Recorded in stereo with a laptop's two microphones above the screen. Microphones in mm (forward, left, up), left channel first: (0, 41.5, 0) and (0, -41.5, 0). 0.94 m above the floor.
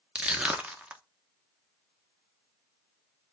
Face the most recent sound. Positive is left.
turn(degrees=-15)  # may be behind; listen again after turning